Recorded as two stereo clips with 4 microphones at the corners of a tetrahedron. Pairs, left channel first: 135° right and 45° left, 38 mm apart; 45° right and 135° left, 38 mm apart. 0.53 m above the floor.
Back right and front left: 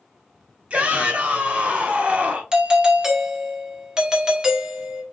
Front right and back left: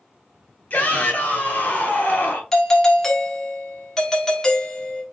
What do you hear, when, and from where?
0.7 s a shout: straight ahead, 2.5 m
2.5 s a doorbell: 5° left, 1.1 m